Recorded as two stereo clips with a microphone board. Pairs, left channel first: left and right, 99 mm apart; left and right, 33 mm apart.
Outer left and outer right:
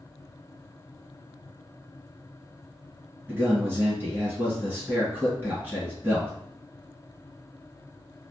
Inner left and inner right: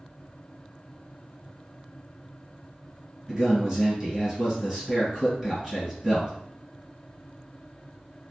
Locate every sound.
3.3 s a man speaking: 20° right (ahead or behind), 1.7 m